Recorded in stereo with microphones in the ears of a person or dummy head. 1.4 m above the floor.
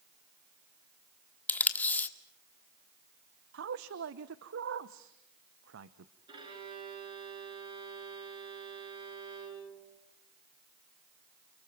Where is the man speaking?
70° right (ahead or behind), 0.8 m.